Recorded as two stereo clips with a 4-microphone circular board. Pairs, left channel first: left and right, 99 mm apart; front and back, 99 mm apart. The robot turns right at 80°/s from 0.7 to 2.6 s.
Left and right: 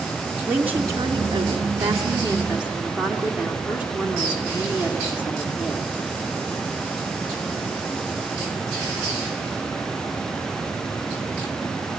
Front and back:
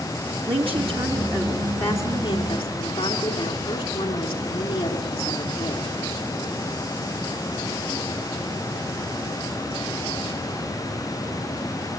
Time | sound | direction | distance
0.5 | a woman speaking | 165° right | 4 m